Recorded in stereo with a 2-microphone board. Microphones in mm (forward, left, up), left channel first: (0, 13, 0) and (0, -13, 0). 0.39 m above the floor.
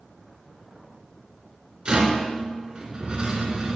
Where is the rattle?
40° right (ahead or behind), 2 m.